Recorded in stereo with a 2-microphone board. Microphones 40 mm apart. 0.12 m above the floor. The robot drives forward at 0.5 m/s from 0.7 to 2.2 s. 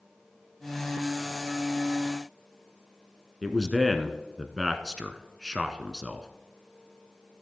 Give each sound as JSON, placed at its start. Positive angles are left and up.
{"t": 3.4, "sound": "a man speaking", "side_deg": -5, "distance_m": 1.1}